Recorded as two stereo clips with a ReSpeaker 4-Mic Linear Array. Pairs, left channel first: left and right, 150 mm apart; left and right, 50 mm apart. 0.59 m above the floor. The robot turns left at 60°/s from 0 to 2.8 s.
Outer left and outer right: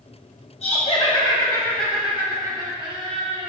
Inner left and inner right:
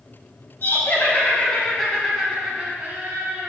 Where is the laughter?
80° left, 0.7 m; by 3.5 s 50° right, 0.7 m.